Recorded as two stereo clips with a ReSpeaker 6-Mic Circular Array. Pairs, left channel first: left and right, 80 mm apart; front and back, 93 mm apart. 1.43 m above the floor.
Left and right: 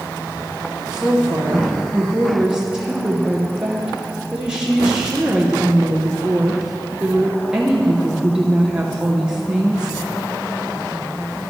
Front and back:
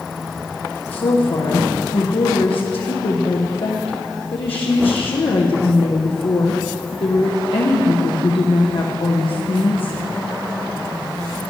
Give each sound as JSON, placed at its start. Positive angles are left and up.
{"t": 0.9, "sound": "a woman speaking", "azimuth_deg": -10, "distance_m": 0.9}